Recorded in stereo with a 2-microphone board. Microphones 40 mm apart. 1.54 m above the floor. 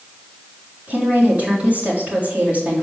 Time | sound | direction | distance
0.9 | a woman speaking | 40° right (ahead or behind) | 4 m